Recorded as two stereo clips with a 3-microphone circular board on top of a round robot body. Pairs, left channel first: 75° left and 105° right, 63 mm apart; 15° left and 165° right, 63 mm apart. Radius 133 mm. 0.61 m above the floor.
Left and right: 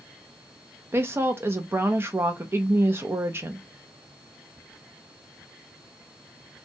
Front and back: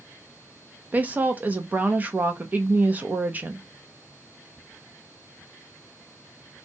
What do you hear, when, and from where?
0.9 s a woman speaking: 120° right, 0.6 m